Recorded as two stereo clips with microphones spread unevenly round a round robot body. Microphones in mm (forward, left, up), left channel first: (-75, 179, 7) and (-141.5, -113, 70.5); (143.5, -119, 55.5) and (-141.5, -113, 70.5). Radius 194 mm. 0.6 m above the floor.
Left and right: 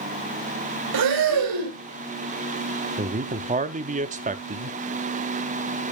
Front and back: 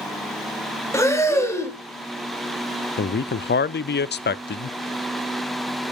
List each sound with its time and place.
0.9 s breathing: 80° right, 2.5 m
3.0 s a man speaking: 30° right, 0.7 m